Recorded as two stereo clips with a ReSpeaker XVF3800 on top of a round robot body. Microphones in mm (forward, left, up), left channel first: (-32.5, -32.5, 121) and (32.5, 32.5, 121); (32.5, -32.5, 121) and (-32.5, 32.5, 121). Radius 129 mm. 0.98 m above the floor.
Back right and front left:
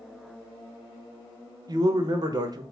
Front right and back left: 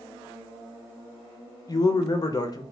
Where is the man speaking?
Straight ahead, 0.7 m.